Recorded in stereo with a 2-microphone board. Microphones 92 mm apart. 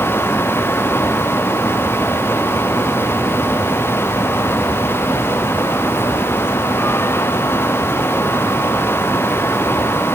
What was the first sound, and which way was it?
Only background noise.